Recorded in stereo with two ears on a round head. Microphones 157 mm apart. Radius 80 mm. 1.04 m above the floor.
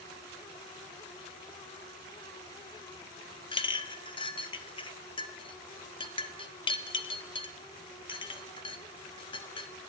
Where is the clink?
30° left (ahead or behind), 1.1 m.